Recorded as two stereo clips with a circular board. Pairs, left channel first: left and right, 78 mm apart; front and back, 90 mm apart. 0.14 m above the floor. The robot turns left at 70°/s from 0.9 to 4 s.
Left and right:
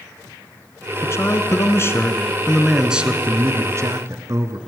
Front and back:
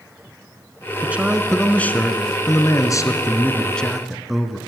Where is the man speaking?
120° left, 1.4 m; by 4.6 s 90° right, 1.4 m.